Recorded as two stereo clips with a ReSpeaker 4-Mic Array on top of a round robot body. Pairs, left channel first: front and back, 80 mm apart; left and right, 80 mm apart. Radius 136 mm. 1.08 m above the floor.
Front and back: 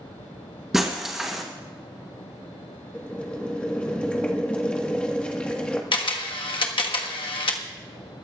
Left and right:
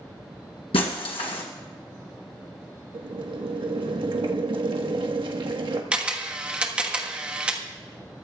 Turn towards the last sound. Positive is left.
turn(degrees=-15)